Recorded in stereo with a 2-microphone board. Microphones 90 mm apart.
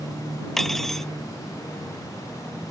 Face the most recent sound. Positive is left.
turn(degrees=5)  # may be behind; listen again after turning